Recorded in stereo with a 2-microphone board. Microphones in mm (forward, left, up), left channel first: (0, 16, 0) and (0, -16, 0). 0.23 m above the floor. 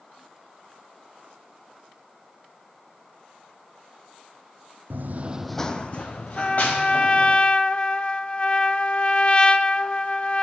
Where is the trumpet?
35° left (ahead or behind), 0.5 m.